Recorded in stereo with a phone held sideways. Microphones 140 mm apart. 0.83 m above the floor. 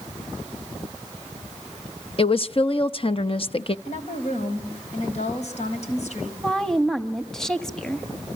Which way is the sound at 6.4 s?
5° left (ahead or behind).